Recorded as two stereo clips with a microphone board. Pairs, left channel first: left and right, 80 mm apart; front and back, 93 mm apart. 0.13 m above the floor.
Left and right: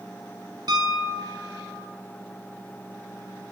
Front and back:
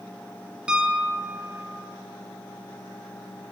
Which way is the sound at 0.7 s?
100° right.